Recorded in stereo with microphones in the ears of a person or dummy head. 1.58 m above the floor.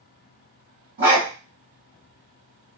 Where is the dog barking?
55° right (ahead or behind), 1.5 m.